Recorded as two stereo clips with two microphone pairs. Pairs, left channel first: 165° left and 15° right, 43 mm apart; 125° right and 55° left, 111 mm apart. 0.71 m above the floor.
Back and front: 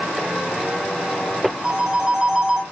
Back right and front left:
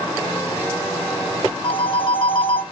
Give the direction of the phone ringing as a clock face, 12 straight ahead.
3 o'clock.